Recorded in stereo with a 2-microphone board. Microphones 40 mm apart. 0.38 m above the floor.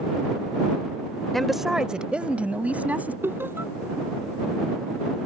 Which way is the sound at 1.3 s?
10° left (ahead or behind).